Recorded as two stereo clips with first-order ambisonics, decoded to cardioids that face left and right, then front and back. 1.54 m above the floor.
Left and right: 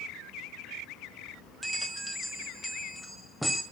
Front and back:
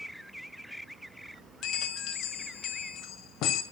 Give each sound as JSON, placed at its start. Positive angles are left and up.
{"t": 1.6, "sound": "a bell", "azimuth_deg": 5, "distance_m": 1.8}